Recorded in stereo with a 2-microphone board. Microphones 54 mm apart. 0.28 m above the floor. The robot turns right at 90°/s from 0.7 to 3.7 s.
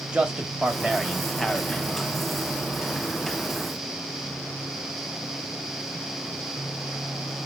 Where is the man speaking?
20° right (ahead or behind), 1.0 m; by 2.2 s 25° left (ahead or behind), 1.0 m.